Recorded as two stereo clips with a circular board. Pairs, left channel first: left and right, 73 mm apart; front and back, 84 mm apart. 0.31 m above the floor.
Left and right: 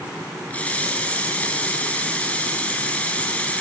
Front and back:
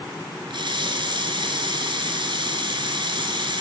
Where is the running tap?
160° left, 3 m.